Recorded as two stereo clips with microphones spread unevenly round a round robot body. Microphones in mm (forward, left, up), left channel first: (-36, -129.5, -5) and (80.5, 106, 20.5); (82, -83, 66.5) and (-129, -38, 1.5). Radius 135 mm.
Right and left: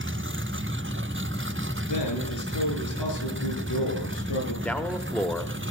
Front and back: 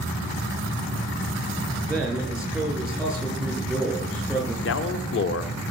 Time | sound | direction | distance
1.9 | a man speaking | 110° right | 6.5 m
4.7 | a man speaking | 35° right | 1.1 m